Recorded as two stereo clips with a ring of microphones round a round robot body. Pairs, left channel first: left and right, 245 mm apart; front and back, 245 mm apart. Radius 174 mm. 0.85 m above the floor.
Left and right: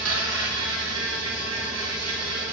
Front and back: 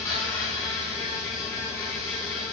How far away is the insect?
About 1.6 m.